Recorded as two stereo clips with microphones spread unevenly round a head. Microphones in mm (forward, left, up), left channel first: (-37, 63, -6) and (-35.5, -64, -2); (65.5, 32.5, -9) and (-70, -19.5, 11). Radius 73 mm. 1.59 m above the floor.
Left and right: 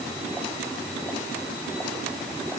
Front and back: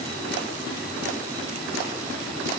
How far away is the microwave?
No microwave in this recording.